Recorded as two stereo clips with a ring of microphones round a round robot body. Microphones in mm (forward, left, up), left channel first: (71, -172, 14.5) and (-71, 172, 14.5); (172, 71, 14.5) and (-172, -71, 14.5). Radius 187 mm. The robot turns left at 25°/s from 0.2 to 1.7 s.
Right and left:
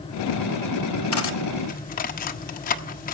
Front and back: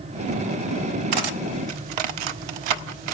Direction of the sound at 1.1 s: 120° right.